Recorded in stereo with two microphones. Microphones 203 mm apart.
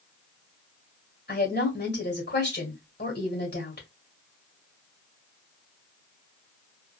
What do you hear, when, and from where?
1.3 s a woman speaking: 55° left (ahead or behind), 1.9 m